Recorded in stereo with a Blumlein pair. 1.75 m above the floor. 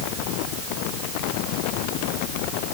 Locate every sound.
Only background noise.